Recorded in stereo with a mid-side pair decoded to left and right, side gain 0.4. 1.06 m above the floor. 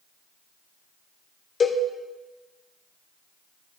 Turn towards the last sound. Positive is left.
turn(degrees=50)